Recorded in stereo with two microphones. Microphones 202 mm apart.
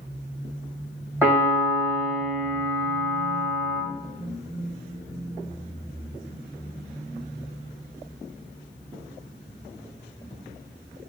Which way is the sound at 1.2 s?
10° right (ahead or behind).